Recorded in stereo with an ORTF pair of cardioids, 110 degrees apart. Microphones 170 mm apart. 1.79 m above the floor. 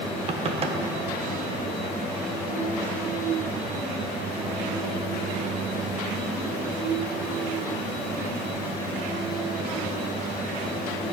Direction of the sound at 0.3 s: 35° right.